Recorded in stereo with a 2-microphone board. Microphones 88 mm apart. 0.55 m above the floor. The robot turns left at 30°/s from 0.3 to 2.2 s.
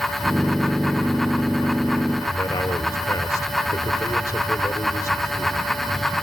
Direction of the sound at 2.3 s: 35° left (ahead or behind).